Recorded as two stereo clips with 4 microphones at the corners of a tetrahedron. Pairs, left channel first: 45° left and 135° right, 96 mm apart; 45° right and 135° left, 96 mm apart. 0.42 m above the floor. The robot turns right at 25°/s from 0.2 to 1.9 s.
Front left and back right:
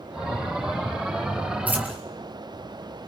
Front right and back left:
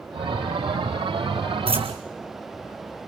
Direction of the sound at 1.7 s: 150° left.